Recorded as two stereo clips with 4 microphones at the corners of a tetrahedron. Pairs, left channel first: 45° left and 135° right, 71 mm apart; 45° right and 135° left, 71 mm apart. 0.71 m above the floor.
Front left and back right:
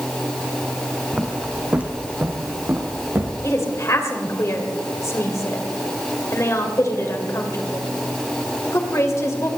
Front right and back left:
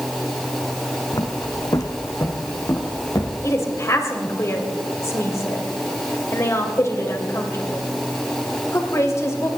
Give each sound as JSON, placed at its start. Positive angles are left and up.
{"t": 1.1, "sound": "footsteps", "azimuth_deg": -55, "distance_m": 1.4}
{"t": 3.4, "sound": "a woman speaking", "azimuth_deg": 0, "distance_m": 2.5}